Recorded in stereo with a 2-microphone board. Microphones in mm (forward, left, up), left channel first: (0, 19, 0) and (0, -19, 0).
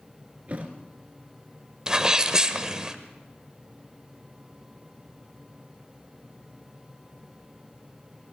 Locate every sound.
0.5 s a thud: 40° right (ahead or behind), 2 m
1.9 s a sneeze: 20° right (ahead or behind), 0.9 m